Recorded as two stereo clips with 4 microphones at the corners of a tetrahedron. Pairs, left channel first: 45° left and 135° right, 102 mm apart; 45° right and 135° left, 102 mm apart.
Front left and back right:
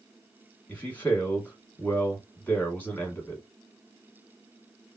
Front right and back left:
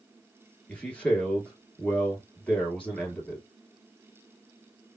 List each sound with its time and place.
0.7 s a man speaking: 5° left, 1.1 m